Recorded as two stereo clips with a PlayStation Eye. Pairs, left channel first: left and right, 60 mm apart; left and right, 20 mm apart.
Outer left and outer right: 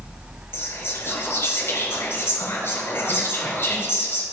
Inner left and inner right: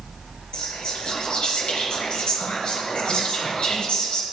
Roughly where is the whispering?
Left.